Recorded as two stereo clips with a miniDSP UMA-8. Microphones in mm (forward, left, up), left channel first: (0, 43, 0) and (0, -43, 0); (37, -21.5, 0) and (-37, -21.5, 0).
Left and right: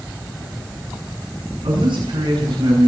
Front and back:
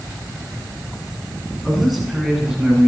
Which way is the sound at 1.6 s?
90° right.